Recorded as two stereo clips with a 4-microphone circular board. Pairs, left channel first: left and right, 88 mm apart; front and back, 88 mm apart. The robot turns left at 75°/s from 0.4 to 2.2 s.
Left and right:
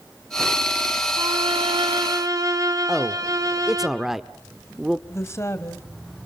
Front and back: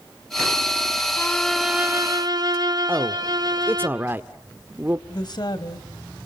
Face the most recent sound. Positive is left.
turn(degrees=30)